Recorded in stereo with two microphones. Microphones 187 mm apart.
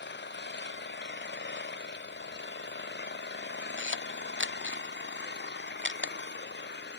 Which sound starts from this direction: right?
A camera shutter, at 3.8 s.